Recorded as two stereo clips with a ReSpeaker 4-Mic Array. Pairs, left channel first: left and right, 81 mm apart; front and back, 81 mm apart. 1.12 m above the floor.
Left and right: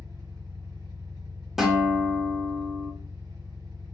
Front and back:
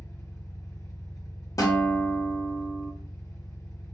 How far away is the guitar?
About 0.9 m.